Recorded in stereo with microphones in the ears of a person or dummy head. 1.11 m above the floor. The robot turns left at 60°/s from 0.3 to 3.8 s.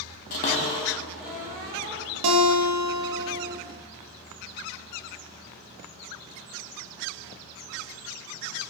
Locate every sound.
0.3 s a cupboard door: 45° left (ahead or behind), 0.8 m; by 2.0 s 40° right (ahead or behind), 0.8 m
2.2 s a guitar: 95° right, 0.6 m; by 3.5 s 175° right, 0.6 m